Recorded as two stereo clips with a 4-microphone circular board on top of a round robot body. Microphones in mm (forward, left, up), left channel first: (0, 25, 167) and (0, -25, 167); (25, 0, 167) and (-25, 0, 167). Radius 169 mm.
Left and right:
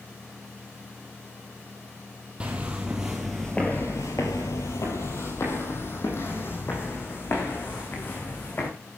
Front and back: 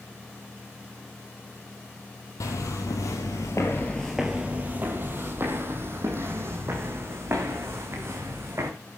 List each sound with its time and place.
2.4 s footsteps: 20° right, 1.6 m; by 8.7 s 140° left, 4.5 m